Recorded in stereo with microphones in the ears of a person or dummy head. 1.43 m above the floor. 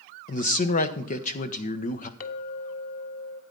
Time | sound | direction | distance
0.3 | a man speaking | 45° left (ahead or behind) | 1.0 m
2.2 | a clink | 50° left (ahead or behind) | 1.4 m